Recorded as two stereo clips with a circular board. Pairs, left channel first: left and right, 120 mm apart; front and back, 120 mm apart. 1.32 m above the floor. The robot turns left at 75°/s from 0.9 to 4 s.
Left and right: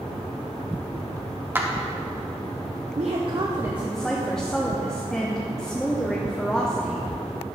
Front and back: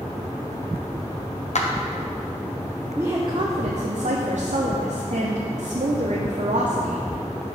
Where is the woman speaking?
105° right, 0.7 m; by 7.0 s 175° left, 0.7 m.